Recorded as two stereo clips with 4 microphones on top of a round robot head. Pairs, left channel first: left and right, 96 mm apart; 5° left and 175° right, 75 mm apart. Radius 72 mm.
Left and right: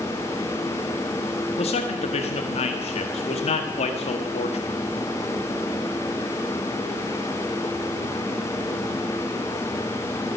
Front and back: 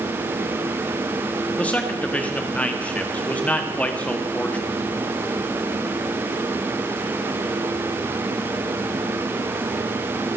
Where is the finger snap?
I don't hear a finger snap.